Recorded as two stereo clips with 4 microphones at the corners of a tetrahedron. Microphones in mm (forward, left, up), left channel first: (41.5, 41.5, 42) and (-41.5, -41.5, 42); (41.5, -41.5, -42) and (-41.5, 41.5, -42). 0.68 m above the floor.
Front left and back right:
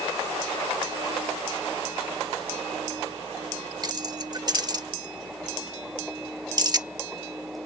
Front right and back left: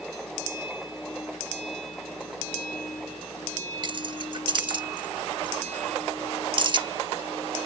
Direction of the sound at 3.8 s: 175° left.